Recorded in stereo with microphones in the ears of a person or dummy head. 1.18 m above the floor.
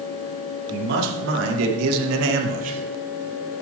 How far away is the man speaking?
About 2.5 m.